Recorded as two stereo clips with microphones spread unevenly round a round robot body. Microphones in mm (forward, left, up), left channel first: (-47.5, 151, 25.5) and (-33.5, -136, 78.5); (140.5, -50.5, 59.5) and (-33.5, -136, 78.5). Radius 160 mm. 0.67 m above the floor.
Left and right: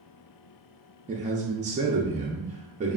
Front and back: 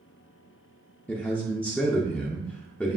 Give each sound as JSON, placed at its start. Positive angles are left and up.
{"t": 1.1, "sound": "a man speaking", "azimuth_deg": -35, "distance_m": 0.5}